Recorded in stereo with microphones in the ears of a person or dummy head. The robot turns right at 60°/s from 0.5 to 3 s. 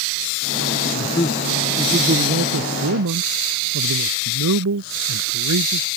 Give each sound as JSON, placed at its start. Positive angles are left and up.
{"t": 0.9, "sound": "a man speaking", "azimuth_deg": 145}